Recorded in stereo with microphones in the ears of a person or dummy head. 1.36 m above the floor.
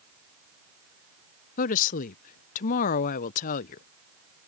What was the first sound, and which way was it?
A woman speaking, 50° left (ahead or behind).